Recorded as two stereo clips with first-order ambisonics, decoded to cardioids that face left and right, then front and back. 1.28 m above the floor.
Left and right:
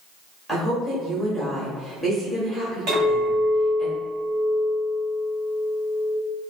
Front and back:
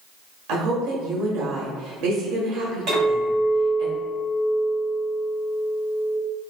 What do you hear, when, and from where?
0.5 s a woman speaking: 170° right, 1.2 m
2.9 s a clink: 130° right, 2.0 m